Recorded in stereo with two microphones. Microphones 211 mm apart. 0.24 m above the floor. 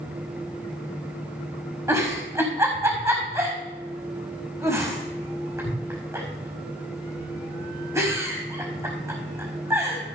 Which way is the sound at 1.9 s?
15° right (ahead or behind).